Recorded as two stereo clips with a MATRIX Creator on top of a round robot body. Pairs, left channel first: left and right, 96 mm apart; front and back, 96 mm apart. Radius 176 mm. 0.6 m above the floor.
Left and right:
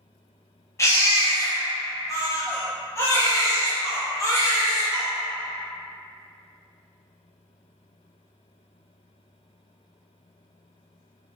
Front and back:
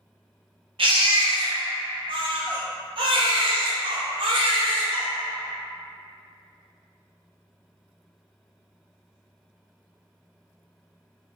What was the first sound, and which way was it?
A baby crying, 150° left.